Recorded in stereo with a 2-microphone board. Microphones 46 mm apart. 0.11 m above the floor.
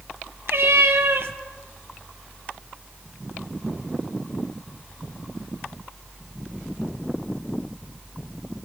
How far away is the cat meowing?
About 0.8 m.